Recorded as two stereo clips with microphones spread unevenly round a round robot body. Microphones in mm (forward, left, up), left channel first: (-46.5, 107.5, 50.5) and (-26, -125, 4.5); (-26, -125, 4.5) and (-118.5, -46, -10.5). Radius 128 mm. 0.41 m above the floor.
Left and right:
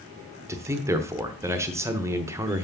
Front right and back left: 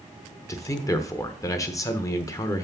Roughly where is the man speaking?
Right.